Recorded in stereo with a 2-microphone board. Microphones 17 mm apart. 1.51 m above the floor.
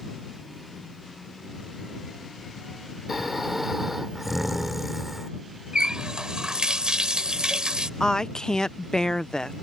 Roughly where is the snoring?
Centre.